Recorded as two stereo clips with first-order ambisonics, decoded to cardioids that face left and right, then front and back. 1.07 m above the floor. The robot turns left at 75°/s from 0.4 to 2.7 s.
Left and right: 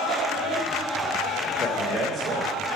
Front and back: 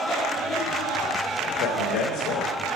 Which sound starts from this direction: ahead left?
A man speaking, at 1.6 s.